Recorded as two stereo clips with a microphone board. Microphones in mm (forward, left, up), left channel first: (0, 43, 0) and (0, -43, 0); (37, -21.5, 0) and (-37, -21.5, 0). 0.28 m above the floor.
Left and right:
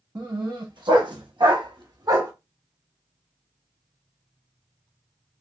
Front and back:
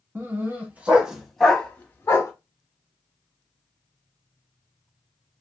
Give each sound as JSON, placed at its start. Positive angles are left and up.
{"t": 0.1, "sound": "a dog barking", "azimuth_deg": -125, "distance_m": 1.1}